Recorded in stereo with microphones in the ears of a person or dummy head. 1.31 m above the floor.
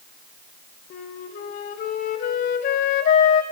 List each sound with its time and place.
0.9 s a flute: 45° left (ahead or behind), 0.7 m